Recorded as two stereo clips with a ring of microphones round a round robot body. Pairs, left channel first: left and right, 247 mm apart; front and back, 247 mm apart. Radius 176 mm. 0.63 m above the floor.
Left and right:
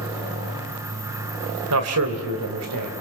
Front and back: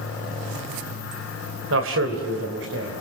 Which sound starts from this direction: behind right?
A man speaking, at 1.7 s.